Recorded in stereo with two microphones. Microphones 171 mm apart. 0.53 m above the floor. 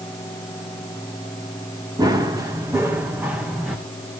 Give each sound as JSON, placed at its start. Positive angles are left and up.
{"t": 2.0, "sound": "running footsteps", "side_deg": -20, "distance_m": 3.5}